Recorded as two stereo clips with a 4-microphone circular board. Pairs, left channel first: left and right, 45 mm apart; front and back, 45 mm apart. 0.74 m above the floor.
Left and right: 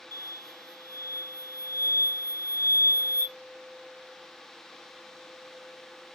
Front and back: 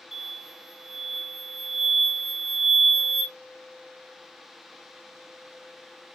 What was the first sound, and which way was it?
An explosion, 90° left.